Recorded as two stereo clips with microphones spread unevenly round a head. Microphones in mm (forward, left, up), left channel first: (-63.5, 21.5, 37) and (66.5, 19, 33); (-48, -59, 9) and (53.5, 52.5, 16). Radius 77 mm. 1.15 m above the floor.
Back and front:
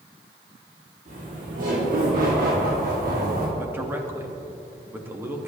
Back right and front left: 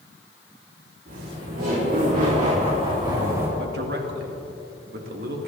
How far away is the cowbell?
I don't hear a cowbell.